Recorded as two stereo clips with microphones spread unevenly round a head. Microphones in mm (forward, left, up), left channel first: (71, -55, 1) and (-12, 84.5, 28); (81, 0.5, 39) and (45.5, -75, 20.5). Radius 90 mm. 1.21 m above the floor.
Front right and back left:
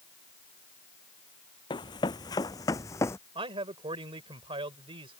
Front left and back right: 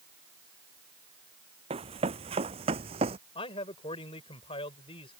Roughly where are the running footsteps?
Behind right.